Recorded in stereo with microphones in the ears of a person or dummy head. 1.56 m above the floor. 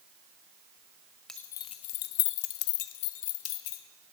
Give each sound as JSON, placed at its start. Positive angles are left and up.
{"t": 1.3, "sound": "keys jangling", "side_deg": 0, "distance_m": 0.5}